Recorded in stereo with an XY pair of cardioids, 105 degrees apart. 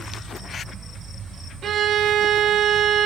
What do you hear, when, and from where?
1.6 s a violin: 55° right, 1.9 m